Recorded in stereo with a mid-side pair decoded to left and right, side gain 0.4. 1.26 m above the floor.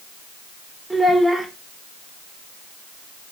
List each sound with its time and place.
0.9 s a child speaking: 15° right, 3 m